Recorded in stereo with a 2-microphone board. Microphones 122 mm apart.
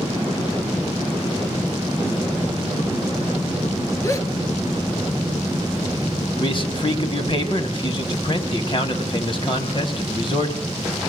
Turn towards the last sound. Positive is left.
turn(degrees=45)  # may be behind; listen again after turning